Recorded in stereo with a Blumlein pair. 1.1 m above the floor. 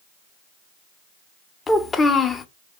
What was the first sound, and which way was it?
A child speaking, 15° left.